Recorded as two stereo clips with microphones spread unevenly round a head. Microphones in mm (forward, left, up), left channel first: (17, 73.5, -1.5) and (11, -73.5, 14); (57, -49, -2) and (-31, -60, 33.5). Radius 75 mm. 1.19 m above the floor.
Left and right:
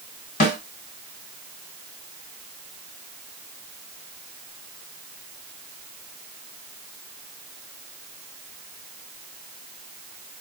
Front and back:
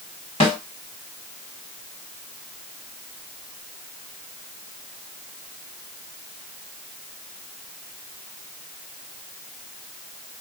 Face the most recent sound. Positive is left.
turn(degrees=65)